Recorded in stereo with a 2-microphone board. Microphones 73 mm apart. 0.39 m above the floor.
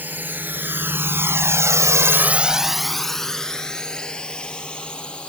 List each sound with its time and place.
0.0 s a drone: 25° right (ahead or behind); by 5.3 s 15° left (ahead or behind)